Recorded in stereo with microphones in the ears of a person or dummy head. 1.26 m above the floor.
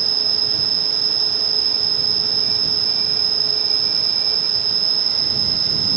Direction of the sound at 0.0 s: 5° left (ahead or behind).